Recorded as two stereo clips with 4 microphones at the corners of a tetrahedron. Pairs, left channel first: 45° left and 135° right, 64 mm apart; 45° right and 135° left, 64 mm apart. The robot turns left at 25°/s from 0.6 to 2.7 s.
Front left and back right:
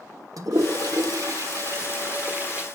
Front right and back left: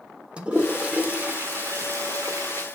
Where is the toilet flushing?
150° right, 1.5 m; by 2.6 s 155° left, 1.5 m.